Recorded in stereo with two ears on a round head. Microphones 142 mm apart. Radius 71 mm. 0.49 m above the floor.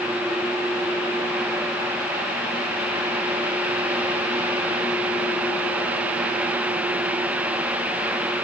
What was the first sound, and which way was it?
Only background noise.